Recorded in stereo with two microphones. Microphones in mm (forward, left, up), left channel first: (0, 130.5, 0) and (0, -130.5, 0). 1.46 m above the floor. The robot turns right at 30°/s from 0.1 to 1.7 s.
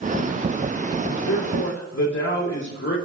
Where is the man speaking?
80° left, 2.5 m; by 3.0 s 75° left (ahead or behind), 2.5 m.